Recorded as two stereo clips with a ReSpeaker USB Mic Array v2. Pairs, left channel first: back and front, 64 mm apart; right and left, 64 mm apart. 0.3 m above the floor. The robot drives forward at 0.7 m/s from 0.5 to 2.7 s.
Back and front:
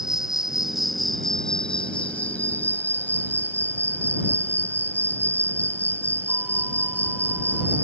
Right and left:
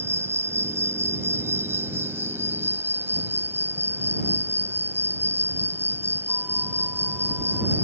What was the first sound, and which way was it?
An insect, 80° left.